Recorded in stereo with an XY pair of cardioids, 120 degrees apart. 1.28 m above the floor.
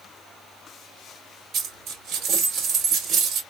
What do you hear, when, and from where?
1.5 s a dropped coin: 60° right, 2.0 m